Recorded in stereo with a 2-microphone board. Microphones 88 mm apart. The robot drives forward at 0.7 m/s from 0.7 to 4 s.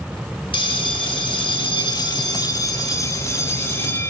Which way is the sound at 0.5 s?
75° left (ahead or behind).